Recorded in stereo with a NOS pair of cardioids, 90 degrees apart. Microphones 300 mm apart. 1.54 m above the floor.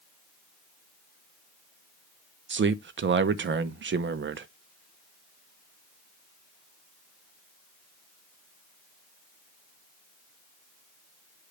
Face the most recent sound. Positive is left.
turn(degrees=-40)